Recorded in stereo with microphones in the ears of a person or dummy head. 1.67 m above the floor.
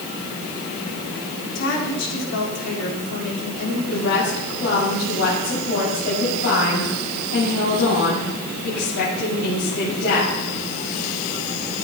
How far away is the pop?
I don't hear a pop.